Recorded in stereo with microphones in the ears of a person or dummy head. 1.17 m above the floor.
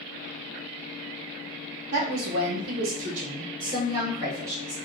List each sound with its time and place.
1.9 s a woman speaking: 55° right (ahead or behind), 0.7 m; by 4.8 s 20° right (ahead or behind), 1.9 m